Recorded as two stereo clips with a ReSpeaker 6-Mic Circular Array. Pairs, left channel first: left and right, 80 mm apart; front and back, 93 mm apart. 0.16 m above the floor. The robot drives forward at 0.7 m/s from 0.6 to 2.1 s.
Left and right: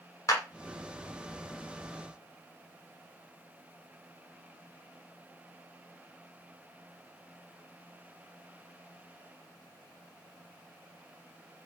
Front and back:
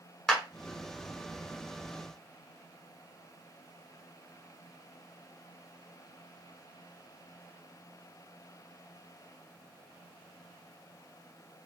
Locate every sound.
0.3 s a clap: 80° left, 1.3 m